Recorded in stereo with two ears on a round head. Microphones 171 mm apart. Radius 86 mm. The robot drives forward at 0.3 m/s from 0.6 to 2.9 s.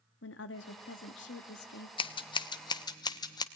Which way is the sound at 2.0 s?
30° left (ahead or behind).